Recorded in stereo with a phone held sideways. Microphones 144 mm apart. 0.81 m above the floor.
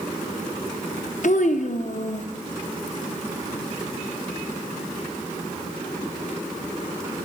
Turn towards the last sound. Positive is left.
turn(degrees=60)  # may be behind; listen again after turning